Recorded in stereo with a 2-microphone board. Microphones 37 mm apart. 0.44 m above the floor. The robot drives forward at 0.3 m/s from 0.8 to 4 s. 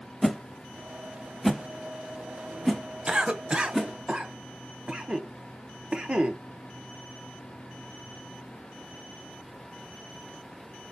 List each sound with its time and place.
0.2 s a whoosh: 5° left (ahead or behind), 0.6 m
3.1 s a cough: 25° right (ahead or behind), 0.8 m